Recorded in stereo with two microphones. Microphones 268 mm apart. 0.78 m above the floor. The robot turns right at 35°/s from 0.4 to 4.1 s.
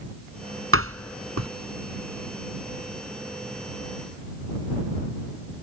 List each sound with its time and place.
0.7 s a door slam: 55° right (ahead or behind); by 1.5 s 80° right